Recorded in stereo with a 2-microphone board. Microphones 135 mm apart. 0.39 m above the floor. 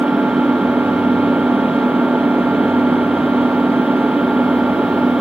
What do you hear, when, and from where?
0.0 s an engine running: 10° right (ahead or behind)